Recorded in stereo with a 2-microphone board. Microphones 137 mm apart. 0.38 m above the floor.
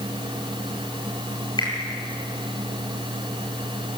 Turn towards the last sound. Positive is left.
turn(degrees=30)  # may be behind; listen again after turning